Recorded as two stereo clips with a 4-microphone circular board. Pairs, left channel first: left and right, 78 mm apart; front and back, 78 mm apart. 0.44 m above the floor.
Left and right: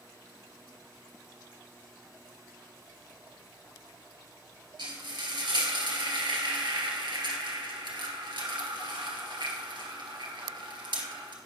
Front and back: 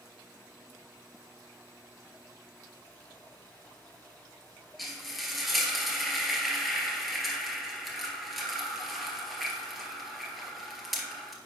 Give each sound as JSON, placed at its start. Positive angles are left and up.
{"t": 4.8, "sound": "frying", "azimuth_deg": -90, "distance_m": 1.8}